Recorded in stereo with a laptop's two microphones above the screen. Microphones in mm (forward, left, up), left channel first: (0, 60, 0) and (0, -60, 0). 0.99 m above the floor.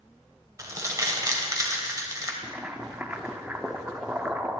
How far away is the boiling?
About 0.5 m.